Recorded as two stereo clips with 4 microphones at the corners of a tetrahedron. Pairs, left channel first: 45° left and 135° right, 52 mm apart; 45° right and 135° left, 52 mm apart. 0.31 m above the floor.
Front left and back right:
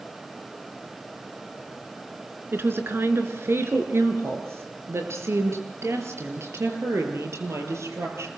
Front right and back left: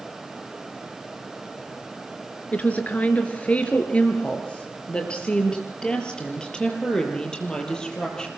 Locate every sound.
2.5 s a woman speaking: 100° right, 4 m; by 8.3 s 120° right, 7.5 m